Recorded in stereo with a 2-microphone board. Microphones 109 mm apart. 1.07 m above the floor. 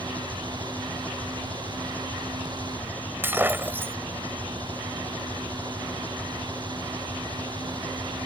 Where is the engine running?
15° left (ahead or behind).